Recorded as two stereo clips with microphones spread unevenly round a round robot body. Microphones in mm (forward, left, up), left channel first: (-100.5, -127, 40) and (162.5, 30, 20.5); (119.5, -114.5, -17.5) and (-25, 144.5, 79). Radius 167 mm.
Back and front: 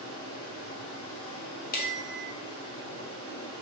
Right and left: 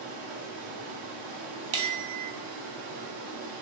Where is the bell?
150° left, 1.3 m.